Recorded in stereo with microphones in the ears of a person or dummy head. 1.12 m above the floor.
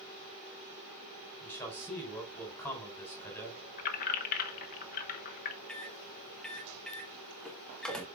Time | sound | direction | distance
1.4 | a man speaking | 10° left (ahead or behind) | 4 m
3.8 | keys jangling | 50° left (ahead or behind) | 1.1 m
5.7 | a microwave | 5° left (ahead or behind) | 1.4 m